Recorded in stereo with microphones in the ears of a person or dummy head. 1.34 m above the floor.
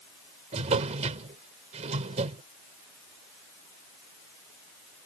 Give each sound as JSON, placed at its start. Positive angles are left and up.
{"t": 0.5, "sound": "a drawer", "side_deg": -35}